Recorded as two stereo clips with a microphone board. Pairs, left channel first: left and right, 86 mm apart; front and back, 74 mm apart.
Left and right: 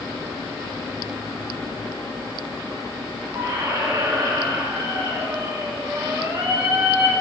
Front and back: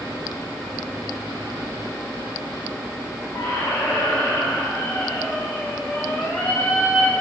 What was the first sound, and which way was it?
A squeak, 55° right.